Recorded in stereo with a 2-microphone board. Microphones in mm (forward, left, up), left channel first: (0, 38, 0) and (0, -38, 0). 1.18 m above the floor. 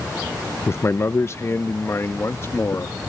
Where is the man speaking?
35° left (ahead or behind); by 3.0 s 40° left (ahead or behind).